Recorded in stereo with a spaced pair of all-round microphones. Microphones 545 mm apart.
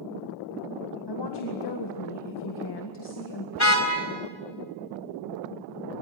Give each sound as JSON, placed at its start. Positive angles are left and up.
{"t": 1.1, "sound": "a woman speaking", "side_deg": 45, "distance_m": 2.0}
{"t": 3.5, "sound": "a car horn", "side_deg": 30, "distance_m": 3.5}